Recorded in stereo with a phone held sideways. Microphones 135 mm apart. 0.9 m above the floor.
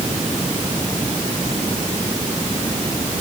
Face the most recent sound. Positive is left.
No sound to turn to.